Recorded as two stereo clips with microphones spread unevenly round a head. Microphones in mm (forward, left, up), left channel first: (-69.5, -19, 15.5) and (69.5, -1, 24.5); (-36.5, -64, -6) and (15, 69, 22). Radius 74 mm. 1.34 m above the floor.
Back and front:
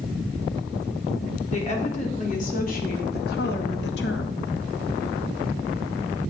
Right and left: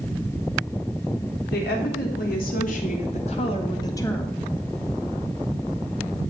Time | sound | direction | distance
1.5 | a woman speaking | 130° right | 3.5 m